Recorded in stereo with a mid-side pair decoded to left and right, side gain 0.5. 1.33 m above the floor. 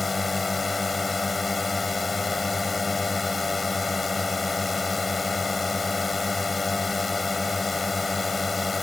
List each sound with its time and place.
0.0 s a drone: 20° left